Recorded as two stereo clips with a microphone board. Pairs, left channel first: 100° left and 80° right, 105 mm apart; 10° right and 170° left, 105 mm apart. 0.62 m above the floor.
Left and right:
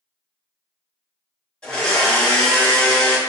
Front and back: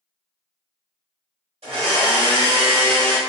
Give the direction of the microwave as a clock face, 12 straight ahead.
I don't hear a microwave.